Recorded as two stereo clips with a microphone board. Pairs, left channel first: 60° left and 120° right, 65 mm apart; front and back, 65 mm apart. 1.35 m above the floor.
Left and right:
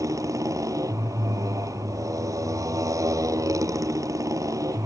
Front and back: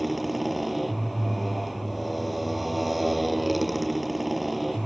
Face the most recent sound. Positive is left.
turn(degrees=-90)